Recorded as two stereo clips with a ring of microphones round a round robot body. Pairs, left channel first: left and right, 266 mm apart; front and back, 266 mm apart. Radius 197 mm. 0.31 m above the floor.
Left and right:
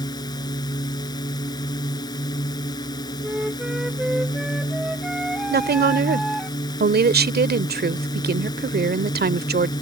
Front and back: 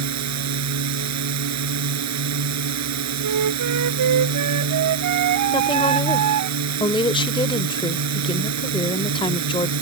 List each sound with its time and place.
0.0 s a drone: 170° left
3.2 s a flute: straight behind
5.5 s a woman speaking: 65° right